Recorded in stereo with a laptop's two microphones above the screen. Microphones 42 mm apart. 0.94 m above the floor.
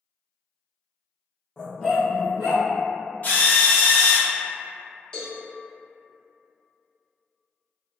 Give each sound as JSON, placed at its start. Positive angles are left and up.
{"t": 1.6, "sound": "a dog barking", "side_deg": 20, "distance_m": 0.6}
{"t": 3.2, "sound": "a drill", "side_deg": 40, "distance_m": 0.5}
{"t": 5.1, "sound": "a cowbell", "side_deg": 20, "distance_m": 0.9}